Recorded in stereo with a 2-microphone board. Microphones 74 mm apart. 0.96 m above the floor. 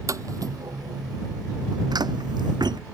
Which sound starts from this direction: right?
Footsteps, at 0.1 s.